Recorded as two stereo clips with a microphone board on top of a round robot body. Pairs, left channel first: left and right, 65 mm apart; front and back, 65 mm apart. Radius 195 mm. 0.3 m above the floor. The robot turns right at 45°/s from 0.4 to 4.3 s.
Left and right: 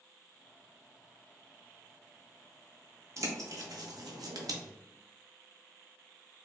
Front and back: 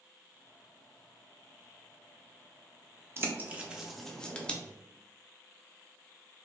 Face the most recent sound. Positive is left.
turn(degrees=-75)